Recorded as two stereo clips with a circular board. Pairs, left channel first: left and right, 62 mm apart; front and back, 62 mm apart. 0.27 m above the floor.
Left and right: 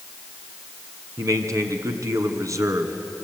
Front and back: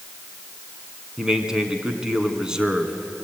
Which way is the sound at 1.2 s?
105° right.